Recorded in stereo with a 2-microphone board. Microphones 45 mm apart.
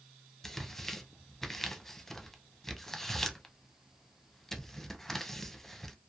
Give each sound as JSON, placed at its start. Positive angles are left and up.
{"t": 0.4, "sound": "tearing paper", "side_deg": 10, "distance_m": 0.5}